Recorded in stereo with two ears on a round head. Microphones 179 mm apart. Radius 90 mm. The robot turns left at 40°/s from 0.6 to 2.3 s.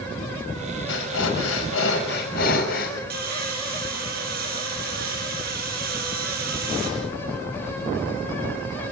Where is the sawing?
45° right (ahead or behind), 7 m.